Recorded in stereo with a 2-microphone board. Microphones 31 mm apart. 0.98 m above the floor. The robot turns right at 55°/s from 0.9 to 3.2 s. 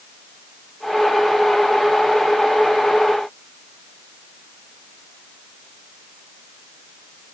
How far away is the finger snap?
No finger snap in this recording.